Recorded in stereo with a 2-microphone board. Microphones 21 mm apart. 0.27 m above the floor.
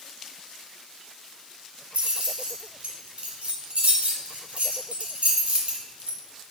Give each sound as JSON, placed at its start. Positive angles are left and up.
{"t": 1.9, "sound": "keys jangling", "side_deg": -70, "distance_m": 1.5}